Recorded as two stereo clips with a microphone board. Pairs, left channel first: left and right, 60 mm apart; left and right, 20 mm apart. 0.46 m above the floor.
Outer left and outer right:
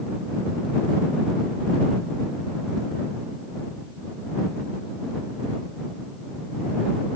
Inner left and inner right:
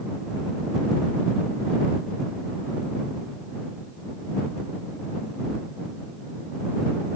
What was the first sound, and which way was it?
Only background noise.